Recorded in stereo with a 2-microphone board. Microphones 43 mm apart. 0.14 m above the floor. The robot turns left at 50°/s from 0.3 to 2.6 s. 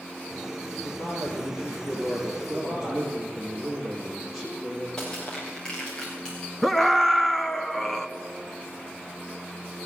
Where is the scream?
5° left (ahead or behind), 1.3 m.